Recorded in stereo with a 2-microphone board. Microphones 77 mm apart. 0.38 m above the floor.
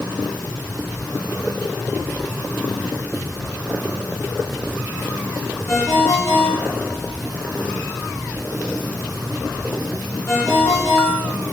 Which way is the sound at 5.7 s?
40° left (ahead or behind).